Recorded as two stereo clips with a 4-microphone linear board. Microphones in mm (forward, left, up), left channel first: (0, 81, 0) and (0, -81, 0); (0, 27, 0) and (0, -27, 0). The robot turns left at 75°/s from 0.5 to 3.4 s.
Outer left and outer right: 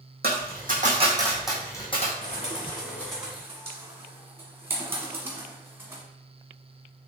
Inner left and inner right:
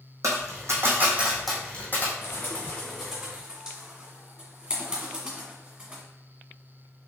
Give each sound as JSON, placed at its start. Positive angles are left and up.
{"t": 0.2, "sound": "a dropped coin", "side_deg": -75, "distance_m": 1.3}
{"t": 2.2, "sound": "a bird", "side_deg": 55, "distance_m": 1.4}